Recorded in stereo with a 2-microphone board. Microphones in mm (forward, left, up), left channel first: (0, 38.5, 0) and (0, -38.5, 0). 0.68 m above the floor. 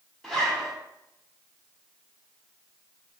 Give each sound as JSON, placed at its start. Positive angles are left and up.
{"t": 0.2, "sound": "a zipper", "side_deg": 5, "distance_m": 1.5}